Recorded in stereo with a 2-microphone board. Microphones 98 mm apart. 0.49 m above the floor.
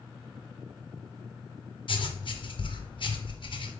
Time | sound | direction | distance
1.9 | writing | 60° left (ahead or behind) | 0.6 m